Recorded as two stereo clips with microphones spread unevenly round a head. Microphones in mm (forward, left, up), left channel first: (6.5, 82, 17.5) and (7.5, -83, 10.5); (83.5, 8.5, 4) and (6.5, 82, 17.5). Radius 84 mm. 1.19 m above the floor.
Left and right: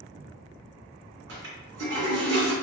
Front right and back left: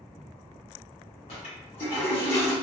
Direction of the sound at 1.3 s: 90° right.